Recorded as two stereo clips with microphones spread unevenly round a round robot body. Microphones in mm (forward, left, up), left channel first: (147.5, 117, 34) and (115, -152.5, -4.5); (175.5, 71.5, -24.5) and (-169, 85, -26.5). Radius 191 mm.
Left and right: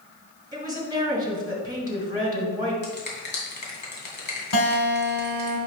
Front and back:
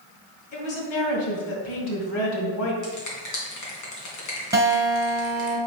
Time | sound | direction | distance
0.5 | a woman speaking | 30° right | 2.5 m
2.8 | a finger snap | 30° left | 2.5 m
4.5 | a guitar | 95° left | 2.5 m